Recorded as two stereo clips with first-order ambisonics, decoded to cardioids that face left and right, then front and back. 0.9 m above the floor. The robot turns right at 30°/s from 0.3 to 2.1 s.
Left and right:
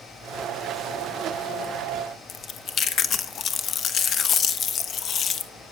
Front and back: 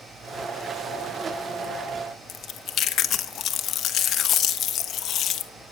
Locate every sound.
2.3 s chewing: 45° left, 0.9 m